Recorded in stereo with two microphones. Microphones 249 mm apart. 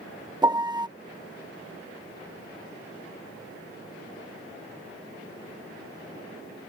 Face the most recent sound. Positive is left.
turn(degrees=-15)  # may be behind; listen again after turning